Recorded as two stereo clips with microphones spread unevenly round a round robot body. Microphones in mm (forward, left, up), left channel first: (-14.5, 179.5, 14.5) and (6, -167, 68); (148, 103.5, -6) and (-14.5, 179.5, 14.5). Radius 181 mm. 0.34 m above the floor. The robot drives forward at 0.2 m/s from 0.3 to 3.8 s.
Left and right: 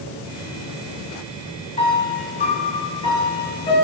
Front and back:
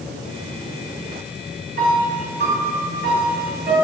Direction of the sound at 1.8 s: 145° left.